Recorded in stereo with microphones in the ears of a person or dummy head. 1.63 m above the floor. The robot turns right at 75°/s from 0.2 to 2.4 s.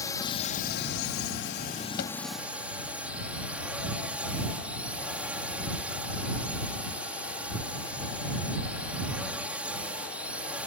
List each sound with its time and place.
0.0 s a drone: 20° left; by 10.7 s 175° right
2.0 s a thud: 55° left (ahead or behind); by 2.2 s 70° left (ahead or behind)